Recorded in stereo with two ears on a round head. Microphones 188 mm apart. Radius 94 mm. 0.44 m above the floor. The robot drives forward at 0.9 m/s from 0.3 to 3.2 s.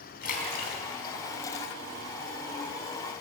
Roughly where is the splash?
Left.